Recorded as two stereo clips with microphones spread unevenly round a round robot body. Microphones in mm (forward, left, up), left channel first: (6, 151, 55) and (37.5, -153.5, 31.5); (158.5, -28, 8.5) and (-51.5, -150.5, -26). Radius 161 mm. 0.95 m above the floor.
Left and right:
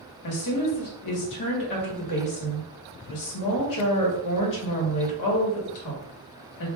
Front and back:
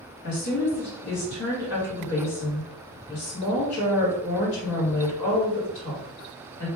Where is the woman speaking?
80° left, 1.2 m.